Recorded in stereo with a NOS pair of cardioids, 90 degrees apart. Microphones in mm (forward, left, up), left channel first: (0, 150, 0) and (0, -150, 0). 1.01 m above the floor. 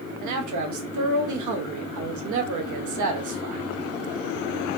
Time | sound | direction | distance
0.2 | a man speaking | 70° right | 1.1 m